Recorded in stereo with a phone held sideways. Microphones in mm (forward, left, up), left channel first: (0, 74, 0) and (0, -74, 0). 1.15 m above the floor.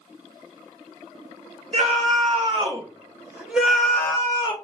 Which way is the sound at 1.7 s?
45° right (ahead or behind).